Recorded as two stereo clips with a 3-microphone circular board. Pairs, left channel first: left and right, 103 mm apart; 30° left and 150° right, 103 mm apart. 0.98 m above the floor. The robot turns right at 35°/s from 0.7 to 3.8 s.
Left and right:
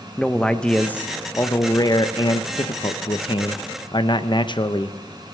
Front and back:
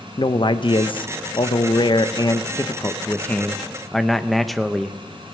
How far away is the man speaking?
About 0.6 m.